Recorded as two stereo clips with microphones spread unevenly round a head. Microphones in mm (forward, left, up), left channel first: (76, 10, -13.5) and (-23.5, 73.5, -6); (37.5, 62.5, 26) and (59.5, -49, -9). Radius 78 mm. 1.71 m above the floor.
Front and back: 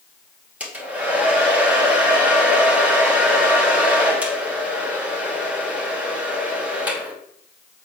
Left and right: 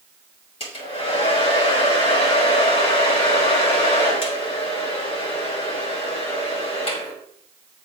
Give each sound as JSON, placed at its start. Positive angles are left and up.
{"t": 0.6, "sound": "a hair dryer", "azimuth_deg": 70, "distance_m": 2.5}